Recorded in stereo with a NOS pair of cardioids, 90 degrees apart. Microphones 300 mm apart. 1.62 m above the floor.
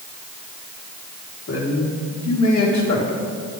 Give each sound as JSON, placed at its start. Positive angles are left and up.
{"t": 1.5, "sound": "a man speaking", "azimuth_deg": 55, "distance_m": 4.0}